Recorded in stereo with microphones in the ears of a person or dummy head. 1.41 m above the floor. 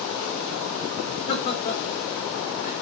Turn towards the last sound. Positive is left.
turn(degrees=40)  # may be behind; listen again after turning